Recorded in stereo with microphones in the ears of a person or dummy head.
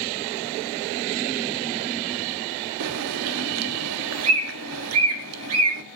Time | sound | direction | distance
2.8 | a bird | 85° right | 2.0 m